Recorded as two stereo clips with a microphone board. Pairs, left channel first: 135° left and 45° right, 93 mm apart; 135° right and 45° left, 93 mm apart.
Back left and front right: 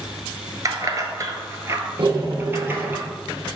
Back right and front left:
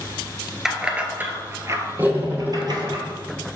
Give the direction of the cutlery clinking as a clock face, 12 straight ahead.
1 o'clock.